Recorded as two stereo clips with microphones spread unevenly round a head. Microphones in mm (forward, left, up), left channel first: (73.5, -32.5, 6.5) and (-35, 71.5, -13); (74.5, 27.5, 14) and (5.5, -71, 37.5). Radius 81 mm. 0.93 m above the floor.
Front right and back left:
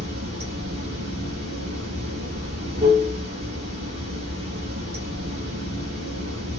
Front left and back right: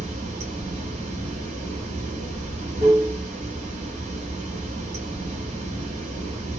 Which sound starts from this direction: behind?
Running water, at 0.0 s.